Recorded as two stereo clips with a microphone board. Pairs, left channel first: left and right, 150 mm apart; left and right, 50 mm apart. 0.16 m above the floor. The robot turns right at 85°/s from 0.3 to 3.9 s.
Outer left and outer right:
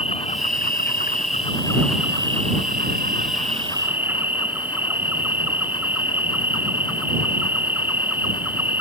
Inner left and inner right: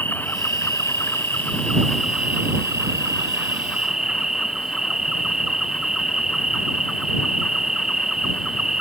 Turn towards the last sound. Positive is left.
turn(degrees=-10)